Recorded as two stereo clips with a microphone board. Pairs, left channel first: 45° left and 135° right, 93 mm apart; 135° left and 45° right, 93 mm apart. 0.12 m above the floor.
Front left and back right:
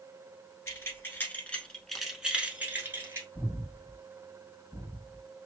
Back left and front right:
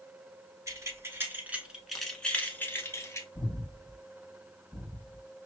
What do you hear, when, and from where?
0.7 s keys jangling: 5° right, 1.1 m; by 3.2 s 175° left, 1.1 m
3.4 s breathing: 115° left, 2.5 m